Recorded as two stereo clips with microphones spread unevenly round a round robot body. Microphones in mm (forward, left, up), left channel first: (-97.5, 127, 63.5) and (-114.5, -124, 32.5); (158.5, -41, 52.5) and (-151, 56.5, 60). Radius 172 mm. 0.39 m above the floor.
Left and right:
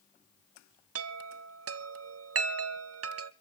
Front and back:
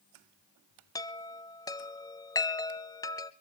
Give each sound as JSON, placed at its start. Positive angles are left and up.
{"t": 0.9, "sound": "a chime", "azimuth_deg": -95, "distance_m": 0.8}